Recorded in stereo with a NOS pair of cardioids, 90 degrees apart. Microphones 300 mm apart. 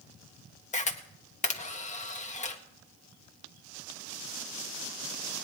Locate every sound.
0.7 s a camera shutter: 25° left, 1.6 m